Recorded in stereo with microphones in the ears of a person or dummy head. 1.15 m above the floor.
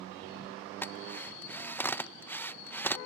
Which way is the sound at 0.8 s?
10° left (ahead or behind).